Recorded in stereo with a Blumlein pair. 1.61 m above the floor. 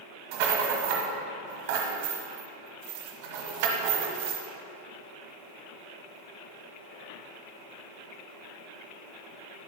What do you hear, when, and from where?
0.3 s a rattle: 50° right, 1.4 m